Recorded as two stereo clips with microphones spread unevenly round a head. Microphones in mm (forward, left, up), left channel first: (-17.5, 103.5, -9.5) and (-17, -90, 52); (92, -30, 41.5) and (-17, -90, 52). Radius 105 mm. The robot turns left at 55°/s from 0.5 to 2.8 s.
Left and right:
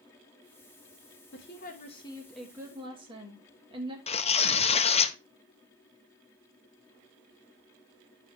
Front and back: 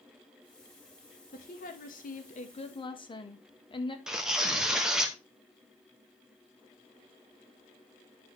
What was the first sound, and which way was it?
A woman speaking, 60° left.